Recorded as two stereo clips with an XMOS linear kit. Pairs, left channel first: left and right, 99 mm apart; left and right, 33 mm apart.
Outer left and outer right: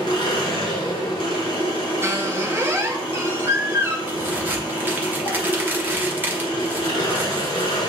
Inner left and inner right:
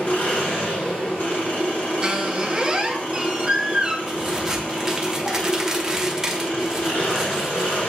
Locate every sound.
0.0 s an engine running: 70° left (ahead or behind), 2.5 m
2.0 s a squeak: 25° right (ahead or behind), 0.6 m
4.1 s a crack: 20° right (ahead or behind), 0.9 m